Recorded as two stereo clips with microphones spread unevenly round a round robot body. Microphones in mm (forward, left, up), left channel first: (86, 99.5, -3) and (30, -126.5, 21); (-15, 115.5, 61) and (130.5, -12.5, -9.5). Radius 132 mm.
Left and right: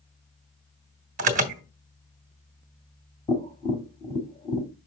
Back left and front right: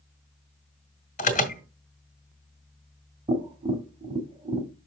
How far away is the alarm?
About 1.7 m.